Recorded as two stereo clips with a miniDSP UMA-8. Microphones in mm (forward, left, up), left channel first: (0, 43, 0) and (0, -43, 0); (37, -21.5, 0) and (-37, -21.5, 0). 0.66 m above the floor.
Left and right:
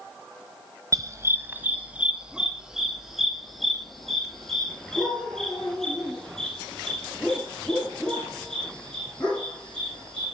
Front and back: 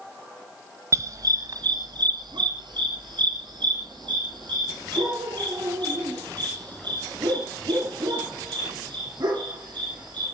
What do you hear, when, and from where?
0.9 s a dog barking: 135° right, 0.9 m; by 10.3 s 170° left, 8.5 m